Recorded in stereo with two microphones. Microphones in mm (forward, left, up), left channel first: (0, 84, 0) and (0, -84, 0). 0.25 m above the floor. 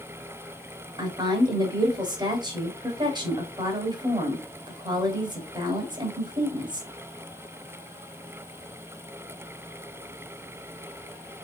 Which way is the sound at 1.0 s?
25° right (ahead or behind).